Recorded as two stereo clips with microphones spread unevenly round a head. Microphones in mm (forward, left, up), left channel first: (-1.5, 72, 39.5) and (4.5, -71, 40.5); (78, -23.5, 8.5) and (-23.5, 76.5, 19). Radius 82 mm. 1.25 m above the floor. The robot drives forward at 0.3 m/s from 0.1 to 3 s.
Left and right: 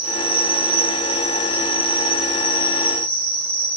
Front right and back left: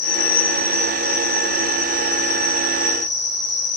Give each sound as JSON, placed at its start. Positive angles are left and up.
{"t": 0.0, "sound": "an insect", "azimuth_deg": -15, "distance_m": 1.7}